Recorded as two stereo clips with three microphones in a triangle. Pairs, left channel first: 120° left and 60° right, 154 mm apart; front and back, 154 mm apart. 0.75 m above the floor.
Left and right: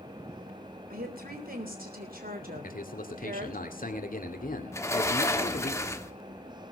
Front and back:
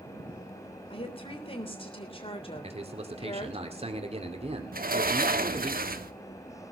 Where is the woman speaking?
50° right, 3.5 m.